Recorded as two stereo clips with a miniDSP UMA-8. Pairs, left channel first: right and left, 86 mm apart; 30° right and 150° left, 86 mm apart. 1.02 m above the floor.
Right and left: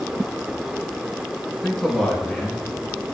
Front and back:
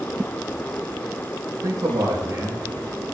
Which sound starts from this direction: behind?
A man speaking, at 1.6 s.